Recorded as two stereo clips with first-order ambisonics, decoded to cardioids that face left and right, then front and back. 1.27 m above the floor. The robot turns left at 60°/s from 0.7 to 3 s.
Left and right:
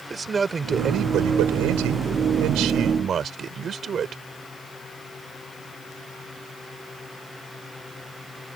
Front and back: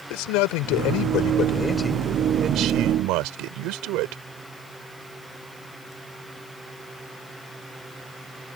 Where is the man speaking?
15° right; by 4.2 s 155° right.